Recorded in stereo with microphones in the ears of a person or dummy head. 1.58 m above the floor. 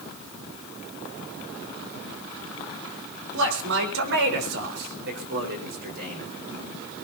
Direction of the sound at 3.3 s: 75° right (ahead or behind).